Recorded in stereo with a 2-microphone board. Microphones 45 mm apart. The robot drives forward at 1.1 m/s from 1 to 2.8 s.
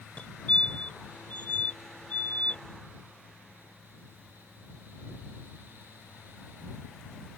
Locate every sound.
0.2 s a fire alarm: 30° left (ahead or behind)